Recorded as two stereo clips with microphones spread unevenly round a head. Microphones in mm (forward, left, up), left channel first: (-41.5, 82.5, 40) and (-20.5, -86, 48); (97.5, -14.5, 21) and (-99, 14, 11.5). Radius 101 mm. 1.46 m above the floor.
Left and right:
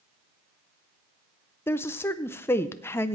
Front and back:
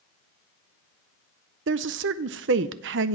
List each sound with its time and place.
1.7 s a woman speaking: 175° left, 0.5 m